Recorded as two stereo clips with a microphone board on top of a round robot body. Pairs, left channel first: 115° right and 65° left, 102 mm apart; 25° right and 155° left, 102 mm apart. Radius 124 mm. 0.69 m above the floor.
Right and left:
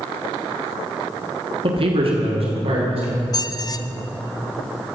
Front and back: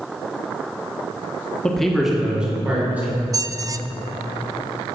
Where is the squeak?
155° right, 0.5 m.